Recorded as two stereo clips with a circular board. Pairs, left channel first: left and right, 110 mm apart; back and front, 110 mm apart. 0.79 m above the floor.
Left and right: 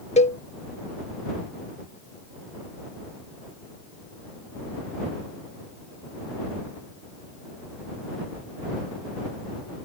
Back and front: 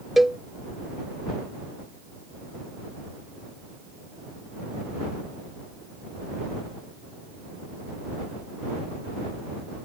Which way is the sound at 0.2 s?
90° left.